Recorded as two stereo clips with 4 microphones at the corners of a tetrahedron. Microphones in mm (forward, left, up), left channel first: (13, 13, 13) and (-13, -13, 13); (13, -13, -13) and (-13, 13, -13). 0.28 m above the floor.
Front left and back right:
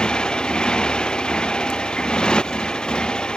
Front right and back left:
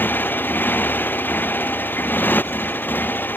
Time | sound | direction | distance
0.0 | a motorcycle | 20° right | ?